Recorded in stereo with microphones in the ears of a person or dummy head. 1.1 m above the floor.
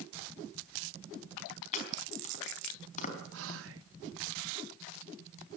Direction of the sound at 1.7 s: 45° left (ahead or behind).